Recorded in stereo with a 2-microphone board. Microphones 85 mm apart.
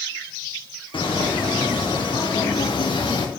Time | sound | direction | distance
0.9 | footsteps | 85° left | 3 m